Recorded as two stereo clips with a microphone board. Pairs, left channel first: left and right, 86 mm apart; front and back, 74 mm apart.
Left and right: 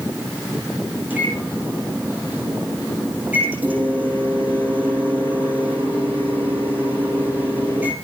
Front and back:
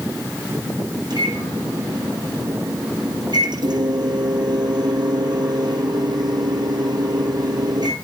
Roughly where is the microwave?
Behind.